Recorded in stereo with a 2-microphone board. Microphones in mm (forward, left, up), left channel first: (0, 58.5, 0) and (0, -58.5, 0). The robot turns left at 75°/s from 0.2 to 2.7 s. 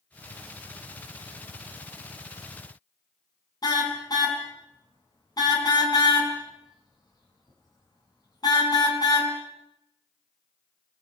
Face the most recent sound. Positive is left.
turn(degrees=35)  # may be behind; listen again after turning